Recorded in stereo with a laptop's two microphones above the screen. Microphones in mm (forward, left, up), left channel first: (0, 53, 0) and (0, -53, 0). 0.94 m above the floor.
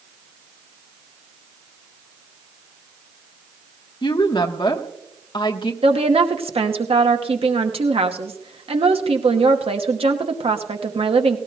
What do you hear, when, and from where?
4.0 s a woman speaking: 50° left (ahead or behind), 1.0 m
5.8 s a woman speaking: 65° right (ahead or behind), 1.0 m